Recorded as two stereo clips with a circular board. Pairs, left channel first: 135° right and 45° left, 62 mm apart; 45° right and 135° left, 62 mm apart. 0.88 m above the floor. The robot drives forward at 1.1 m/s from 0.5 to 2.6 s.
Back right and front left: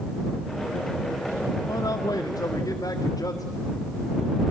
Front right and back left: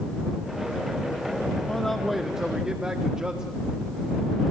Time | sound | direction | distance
1.7 | a man speaking | 115° right | 1.0 m